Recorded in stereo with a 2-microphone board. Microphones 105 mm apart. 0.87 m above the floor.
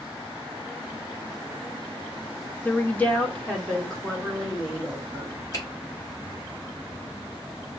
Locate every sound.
2.6 s a woman speaking: 20° left (ahead or behind), 0.5 m; by 5.4 s centre (ahead or behind), 1.9 m
5.5 s a finger snap: 35° left (ahead or behind), 2 m